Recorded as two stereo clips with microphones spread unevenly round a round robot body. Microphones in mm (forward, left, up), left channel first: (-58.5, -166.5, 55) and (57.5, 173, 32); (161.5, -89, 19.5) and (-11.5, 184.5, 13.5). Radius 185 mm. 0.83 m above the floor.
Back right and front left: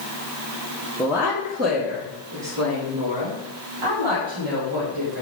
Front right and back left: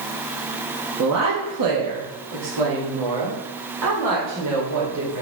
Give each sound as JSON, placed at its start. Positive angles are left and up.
{"t": 1.0, "sound": "a woman speaking", "azimuth_deg": 160, "distance_m": 1.2}